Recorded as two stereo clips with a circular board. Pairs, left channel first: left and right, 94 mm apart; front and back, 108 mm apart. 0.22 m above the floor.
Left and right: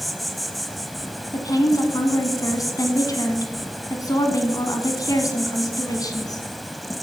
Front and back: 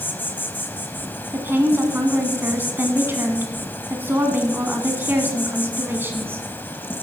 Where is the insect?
Straight ahead, 1.0 m.